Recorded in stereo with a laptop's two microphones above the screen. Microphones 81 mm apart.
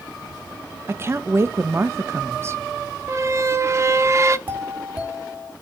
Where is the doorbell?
20° right (ahead or behind), 2.5 m.